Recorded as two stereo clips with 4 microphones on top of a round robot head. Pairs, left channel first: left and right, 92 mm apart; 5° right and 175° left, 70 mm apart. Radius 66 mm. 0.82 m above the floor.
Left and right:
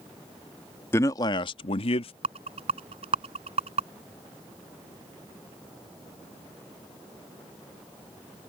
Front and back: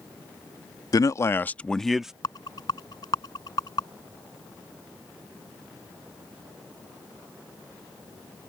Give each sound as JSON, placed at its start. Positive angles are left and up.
{"t": 0.9, "sound": "a man speaking", "azimuth_deg": 25}
{"t": 2.2, "sound": "a rattle", "azimuth_deg": -55}